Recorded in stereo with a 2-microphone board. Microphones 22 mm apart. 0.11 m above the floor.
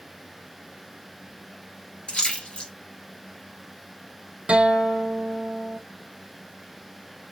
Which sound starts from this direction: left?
A splash, at 2.1 s.